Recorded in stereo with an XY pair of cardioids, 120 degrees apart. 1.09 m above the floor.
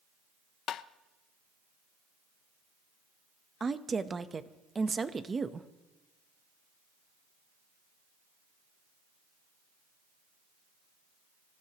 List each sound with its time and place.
0.7 s tapping: 60° left, 0.5 m
3.6 s a woman speaking: 25° right, 0.9 m